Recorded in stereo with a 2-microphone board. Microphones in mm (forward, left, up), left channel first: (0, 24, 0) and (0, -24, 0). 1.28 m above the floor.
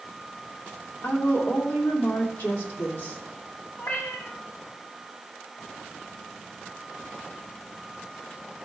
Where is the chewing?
No chewing in this recording.